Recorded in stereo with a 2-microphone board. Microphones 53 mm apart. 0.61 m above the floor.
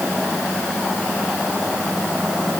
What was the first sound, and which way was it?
Only background noise.